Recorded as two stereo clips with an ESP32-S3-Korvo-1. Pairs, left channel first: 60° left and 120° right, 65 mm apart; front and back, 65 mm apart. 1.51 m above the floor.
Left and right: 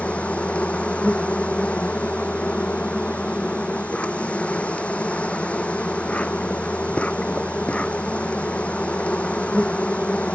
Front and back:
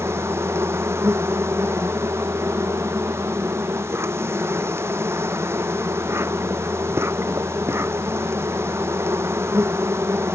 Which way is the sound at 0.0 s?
130° left.